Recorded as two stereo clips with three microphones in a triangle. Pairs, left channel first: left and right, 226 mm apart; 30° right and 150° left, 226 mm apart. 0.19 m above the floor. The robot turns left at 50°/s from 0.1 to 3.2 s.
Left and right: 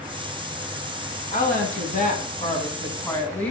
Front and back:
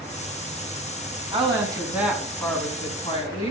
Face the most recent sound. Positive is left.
turn(degrees=10)